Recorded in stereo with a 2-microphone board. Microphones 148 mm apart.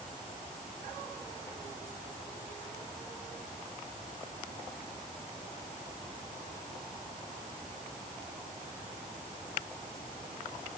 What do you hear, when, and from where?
Only background noise.